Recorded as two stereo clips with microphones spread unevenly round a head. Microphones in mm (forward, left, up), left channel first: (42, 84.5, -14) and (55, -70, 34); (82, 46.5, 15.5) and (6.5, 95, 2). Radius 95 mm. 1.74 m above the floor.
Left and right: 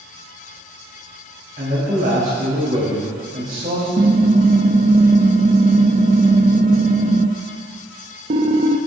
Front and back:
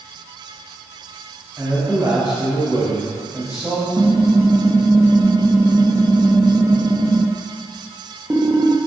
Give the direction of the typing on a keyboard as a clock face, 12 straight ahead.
5 o'clock.